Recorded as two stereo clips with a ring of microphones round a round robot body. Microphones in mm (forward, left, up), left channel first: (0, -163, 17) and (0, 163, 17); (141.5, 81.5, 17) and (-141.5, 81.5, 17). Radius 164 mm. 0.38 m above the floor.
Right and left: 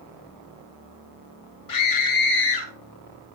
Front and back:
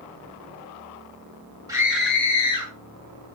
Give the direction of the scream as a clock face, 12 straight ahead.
3 o'clock.